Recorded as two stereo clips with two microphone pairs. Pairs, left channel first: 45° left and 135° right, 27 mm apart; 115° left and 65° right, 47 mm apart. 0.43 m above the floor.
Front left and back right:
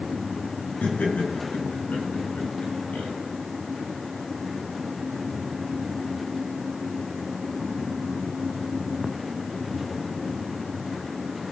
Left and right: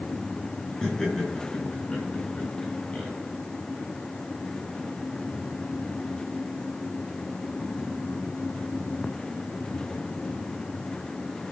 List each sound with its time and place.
0.8 s laughter: 35° left, 5 m; by 3.1 s 45° left, 3 m